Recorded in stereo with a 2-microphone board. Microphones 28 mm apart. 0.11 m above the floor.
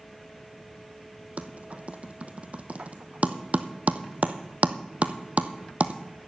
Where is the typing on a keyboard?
55° right (ahead or behind), 1.1 m.